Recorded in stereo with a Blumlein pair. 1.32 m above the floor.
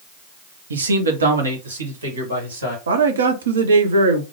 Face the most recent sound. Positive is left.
turn(degrees=-65)